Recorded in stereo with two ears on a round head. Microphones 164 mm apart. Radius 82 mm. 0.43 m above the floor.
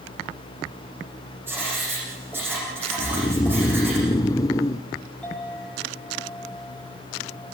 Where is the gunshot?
I don't hear a gunshot.